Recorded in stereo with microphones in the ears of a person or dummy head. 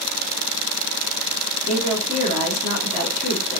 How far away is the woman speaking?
About 3 m.